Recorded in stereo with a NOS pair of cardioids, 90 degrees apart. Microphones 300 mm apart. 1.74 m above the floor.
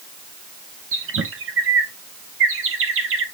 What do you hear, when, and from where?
0.9 s a bird: 45° right, 1.8 m